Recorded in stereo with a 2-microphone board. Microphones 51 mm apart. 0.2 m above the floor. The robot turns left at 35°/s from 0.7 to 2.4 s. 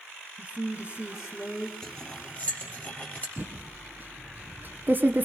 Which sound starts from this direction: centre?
Cutlery clinking, at 1.8 s.